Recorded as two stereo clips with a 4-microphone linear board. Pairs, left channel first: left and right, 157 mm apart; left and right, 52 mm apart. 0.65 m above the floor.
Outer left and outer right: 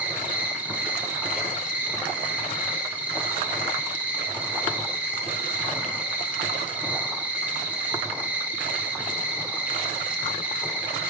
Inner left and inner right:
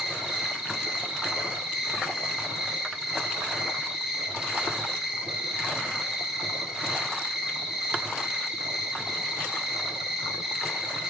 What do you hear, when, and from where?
0.0 s an insect: 10° right (ahead or behind), 0.7 m